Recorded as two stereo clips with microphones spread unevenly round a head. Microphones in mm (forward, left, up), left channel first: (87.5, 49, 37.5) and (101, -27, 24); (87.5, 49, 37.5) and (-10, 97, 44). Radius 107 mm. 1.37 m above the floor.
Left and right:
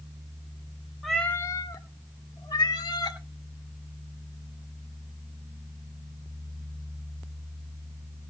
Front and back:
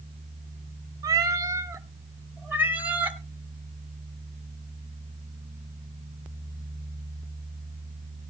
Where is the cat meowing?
175° left, 0.7 m; by 3.2 s 80° left, 2.5 m.